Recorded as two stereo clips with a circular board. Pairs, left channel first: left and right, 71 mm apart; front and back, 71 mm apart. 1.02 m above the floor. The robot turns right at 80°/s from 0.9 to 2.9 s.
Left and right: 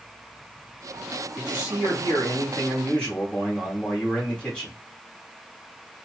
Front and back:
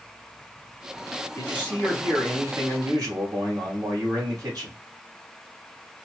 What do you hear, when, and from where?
1.4 s a man speaking: 40° left, 1.9 m; by 4.8 s 165° left, 1.9 m